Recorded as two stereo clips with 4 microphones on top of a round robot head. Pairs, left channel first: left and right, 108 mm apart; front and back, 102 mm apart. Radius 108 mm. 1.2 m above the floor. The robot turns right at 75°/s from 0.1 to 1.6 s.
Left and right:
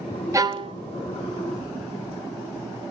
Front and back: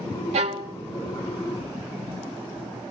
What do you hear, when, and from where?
0.3 s a violin: 150° right, 0.9 m; by 0.8 s 120° right, 0.9 m